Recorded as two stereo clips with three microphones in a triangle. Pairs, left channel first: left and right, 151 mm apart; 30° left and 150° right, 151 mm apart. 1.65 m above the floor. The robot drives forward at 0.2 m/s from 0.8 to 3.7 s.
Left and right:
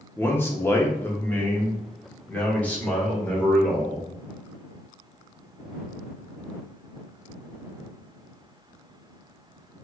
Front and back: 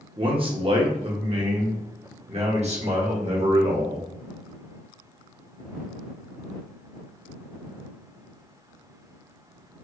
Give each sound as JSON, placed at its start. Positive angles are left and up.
{"t": 0.2, "sound": "a man speaking", "azimuth_deg": 165, "distance_m": 0.8}